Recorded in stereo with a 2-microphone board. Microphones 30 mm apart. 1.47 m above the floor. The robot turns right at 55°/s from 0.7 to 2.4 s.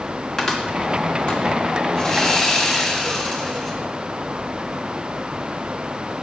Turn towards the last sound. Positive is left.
turn(degrees=5)  # may be behind; listen again after turning